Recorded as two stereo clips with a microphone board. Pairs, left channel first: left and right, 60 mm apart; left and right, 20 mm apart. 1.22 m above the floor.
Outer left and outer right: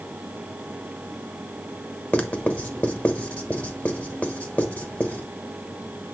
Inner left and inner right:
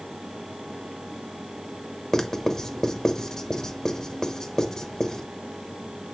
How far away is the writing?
About 1.0 m.